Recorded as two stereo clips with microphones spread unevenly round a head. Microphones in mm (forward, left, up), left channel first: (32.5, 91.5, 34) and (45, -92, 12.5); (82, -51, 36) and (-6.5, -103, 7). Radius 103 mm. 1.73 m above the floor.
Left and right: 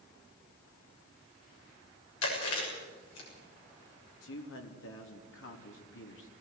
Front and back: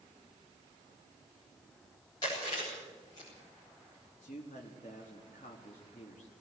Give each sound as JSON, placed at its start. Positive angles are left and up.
{"t": 2.2, "sound": "chewing", "azimuth_deg": 100, "distance_m": 7.0}
{"t": 4.2, "sound": "a man speaking", "azimuth_deg": 80, "distance_m": 3.5}